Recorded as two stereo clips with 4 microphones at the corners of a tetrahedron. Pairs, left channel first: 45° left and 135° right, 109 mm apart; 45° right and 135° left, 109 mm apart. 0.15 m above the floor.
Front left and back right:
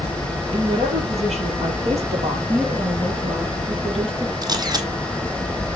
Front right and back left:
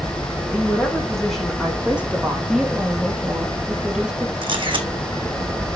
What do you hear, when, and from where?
0.5 s a woman speaking: 120° right, 4.5 m; by 2.4 s 155° right, 4 m
2.5 s a woman speaking: 140° right, 2.5 m
4.4 s a camera shutter: 175° left, 1.4 m